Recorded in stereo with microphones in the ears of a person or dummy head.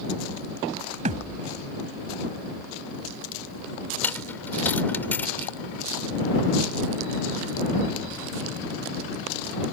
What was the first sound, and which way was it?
A thud, 35° right (ahead or behind).